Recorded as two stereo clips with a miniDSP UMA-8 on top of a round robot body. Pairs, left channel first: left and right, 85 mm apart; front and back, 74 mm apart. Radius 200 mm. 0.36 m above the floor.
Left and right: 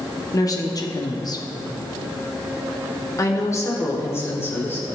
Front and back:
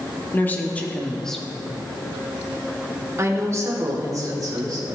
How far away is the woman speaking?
About 1.9 m.